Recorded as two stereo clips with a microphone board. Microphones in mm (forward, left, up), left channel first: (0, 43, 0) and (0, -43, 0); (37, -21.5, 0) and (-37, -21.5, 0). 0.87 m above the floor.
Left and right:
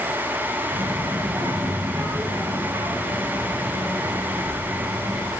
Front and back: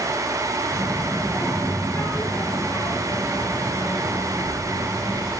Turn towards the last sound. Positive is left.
turn(degrees=-35)